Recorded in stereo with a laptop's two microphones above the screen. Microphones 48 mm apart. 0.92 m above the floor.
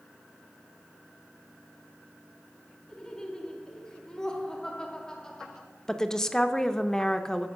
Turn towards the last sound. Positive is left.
turn(degrees=10)  # may be behind; listen again after turning